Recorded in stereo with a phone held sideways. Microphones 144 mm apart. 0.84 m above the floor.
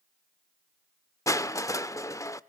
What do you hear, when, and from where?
1.3 s crushing: 20° left (ahead or behind), 0.6 m